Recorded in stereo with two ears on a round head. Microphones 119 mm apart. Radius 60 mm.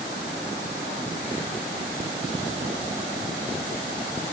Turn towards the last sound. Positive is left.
No sound to turn to.